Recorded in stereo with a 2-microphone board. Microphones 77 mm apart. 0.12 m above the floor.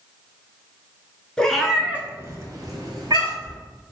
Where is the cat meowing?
10° left (ahead or behind), 0.6 m; by 3.6 s 65° right (ahead or behind), 1.1 m.